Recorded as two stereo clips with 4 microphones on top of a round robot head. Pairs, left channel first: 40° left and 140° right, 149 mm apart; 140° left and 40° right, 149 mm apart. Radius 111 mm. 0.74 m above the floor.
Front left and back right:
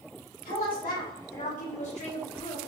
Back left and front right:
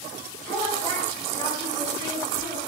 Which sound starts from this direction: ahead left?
A woman speaking, at 0.5 s.